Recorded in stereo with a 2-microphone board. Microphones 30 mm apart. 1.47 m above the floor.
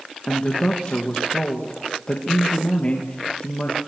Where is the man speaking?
35° left (ahead or behind), 2 m.